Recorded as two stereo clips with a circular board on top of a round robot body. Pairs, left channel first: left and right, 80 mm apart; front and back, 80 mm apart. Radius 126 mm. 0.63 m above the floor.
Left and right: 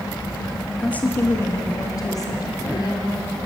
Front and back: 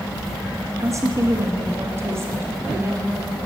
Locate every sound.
0.8 s a woman speaking: 160° left, 1.1 m; by 3.4 s 115° left, 2.5 m